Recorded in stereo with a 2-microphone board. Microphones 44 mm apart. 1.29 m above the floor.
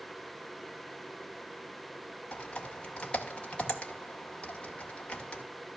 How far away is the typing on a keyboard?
About 2 m.